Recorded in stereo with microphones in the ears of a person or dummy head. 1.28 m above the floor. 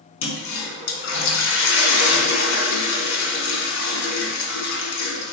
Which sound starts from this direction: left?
A toilet flushing, at 0.2 s.